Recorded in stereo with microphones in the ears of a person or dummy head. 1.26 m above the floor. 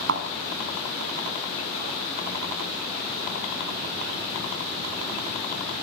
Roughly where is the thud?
Right.